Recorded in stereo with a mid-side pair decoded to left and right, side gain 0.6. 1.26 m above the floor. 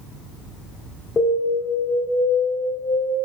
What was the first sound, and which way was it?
An alarm, 20° left.